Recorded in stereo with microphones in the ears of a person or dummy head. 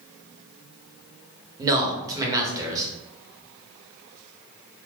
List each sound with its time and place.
1.6 s a man speaking: 20° right (ahead or behind), 1.1 m